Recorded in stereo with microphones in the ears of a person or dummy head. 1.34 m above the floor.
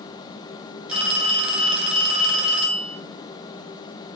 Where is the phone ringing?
5° right (ahead or behind), 4 m.